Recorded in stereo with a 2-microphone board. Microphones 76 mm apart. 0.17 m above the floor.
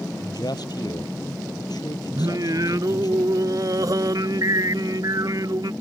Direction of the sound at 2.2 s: 55° right (ahead or behind).